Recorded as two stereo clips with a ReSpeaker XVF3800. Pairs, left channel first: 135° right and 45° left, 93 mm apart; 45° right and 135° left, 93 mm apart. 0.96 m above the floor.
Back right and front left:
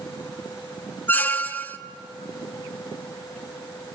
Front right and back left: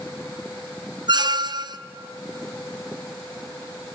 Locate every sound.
1.1 s a squeak: 160° left, 0.6 m